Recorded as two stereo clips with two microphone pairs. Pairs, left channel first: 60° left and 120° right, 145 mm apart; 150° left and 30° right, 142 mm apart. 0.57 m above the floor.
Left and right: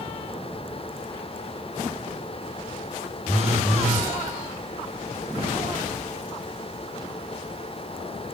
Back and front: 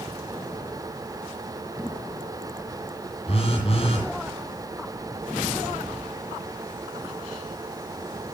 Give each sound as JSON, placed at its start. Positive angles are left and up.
{"t": 3.3, "sound": "a phone buzzing", "azimuth_deg": 100, "distance_m": 9.0}